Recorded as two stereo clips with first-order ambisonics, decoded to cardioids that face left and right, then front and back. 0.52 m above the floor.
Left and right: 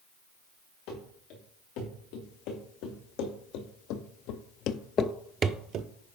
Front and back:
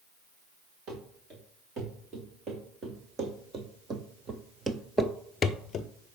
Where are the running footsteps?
120° left, 4 m; by 5.9 s 55° right, 0.8 m.